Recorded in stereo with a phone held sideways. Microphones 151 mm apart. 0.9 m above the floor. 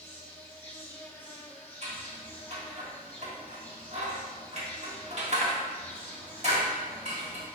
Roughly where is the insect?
Centre.